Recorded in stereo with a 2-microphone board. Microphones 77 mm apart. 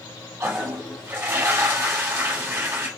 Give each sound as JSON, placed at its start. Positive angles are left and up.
{"t": 0.4, "sound": "a toilet flushing", "side_deg": -35, "distance_m": 1.4}